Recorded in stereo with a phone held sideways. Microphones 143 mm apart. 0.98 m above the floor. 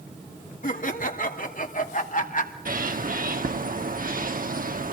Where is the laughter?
70° left (ahead or behind), 2.5 m; by 2.5 s 65° left (ahead or behind), 2.5 m.